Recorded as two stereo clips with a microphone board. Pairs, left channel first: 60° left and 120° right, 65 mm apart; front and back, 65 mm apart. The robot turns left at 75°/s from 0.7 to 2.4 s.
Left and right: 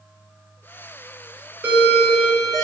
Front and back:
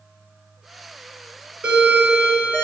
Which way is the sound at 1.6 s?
135° right.